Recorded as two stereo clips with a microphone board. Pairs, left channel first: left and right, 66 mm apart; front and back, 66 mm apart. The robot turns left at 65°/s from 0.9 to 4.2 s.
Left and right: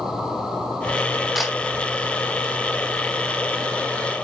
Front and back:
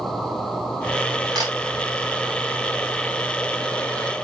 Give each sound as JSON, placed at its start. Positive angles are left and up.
{"t": 1.4, "sound": "a camera shutter", "azimuth_deg": -175, "distance_m": 3.0}